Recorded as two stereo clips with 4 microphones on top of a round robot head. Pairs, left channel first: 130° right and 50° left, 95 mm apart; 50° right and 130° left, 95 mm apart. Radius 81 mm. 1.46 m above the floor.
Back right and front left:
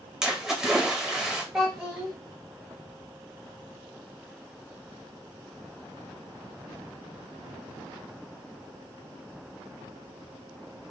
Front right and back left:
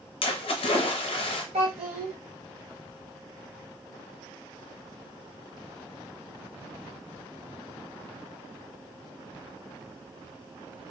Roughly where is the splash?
Ahead right.